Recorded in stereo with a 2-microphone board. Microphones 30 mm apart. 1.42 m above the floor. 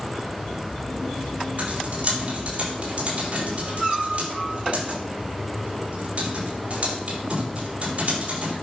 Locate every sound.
1.6 s typing on a keyboard: 55° right (ahead or behind), 5 m